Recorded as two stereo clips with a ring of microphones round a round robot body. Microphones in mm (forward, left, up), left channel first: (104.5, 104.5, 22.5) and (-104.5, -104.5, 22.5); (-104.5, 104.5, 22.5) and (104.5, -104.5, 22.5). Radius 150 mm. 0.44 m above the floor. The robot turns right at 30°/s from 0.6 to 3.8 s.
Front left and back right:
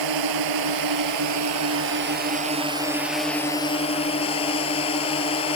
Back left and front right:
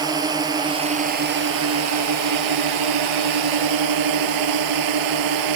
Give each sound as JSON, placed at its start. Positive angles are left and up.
{"t": 0.0, "sound": "a drone", "azimuth_deg": -125}